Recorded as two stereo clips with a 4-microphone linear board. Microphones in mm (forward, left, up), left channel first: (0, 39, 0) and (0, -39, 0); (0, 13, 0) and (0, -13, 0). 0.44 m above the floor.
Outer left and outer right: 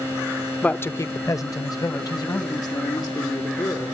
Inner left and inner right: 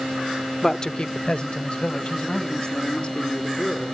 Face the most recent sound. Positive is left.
turn(degrees=55)  # may be behind; listen again after turning